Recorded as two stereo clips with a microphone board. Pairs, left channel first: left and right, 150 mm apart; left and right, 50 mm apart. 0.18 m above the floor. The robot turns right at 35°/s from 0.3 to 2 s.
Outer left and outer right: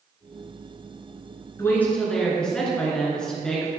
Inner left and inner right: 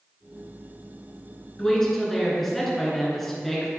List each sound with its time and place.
1.6 s a woman speaking: 20° left (ahead or behind), 2.0 m; by 3.7 s 5° left (ahead or behind), 2.0 m